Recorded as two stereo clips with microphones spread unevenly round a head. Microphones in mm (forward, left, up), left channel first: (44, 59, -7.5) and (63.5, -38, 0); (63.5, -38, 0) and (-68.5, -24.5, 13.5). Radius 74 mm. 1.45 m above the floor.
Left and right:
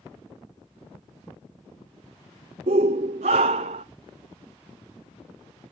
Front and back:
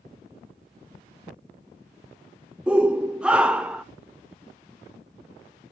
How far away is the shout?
About 0.6 m.